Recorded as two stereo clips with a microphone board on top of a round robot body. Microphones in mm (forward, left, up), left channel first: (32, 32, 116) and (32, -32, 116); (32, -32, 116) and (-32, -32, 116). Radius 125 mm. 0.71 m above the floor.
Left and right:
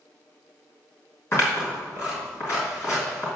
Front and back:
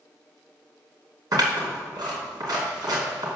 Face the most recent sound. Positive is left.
turn(degrees=145)